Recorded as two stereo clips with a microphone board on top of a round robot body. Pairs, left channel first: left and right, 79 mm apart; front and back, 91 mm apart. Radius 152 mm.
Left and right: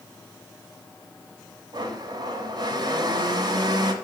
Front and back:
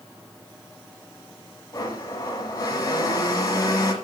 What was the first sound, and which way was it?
A blender, 55° right.